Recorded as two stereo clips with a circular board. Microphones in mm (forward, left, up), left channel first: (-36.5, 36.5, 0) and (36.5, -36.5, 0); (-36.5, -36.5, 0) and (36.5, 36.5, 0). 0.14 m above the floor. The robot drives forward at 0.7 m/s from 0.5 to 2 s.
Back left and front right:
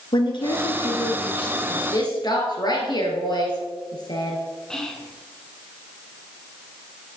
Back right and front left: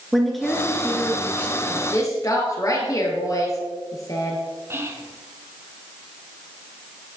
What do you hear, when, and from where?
0.1 s a woman speaking: 135° left, 1.6 m; by 1.8 s 155° left, 2.5 m
1.9 s a woman speaking: 175° left, 2.0 m
4.7 s whispering: 55° left, 1.1 m